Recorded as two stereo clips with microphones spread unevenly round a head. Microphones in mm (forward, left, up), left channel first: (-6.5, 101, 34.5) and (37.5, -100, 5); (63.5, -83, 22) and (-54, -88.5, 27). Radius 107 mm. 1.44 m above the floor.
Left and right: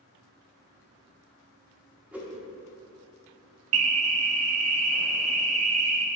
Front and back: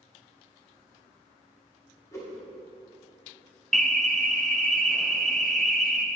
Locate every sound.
2.1 s a whoosh: 15° left, 1.0 m
3.7 s an alarm: 85° right, 1.0 m